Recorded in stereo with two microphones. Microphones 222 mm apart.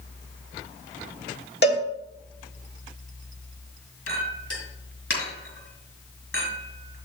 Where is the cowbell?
50° left (ahead or behind), 1.5 m.